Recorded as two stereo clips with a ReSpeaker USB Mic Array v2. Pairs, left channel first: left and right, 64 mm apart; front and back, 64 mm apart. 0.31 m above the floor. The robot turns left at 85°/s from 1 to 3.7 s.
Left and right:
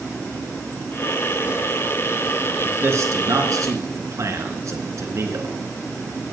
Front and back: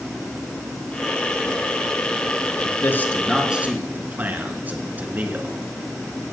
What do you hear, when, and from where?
2.6 s a man speaking: 30° right, 3 m; by 5.6 s 120° right, 3 m